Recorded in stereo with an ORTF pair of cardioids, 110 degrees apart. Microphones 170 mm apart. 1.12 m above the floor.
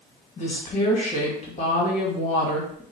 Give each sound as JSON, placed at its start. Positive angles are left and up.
{"t": 0.4, "sound": "a woman speaking", "azimuth_deg": 45, "distance_m": 1.5}